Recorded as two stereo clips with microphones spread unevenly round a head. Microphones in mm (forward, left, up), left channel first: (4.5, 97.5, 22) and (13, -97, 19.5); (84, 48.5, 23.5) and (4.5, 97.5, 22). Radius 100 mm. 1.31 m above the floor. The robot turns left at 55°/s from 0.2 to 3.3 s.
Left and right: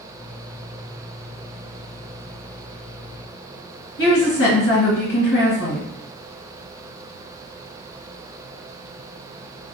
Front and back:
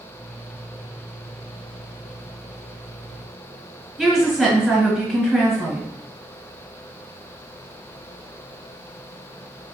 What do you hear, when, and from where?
4.0 s a woman speaking: 60° left, 1.5 m